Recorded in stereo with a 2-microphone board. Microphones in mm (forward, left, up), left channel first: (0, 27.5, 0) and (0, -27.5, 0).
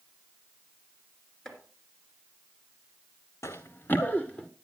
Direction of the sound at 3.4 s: 65° left (ahead or behind).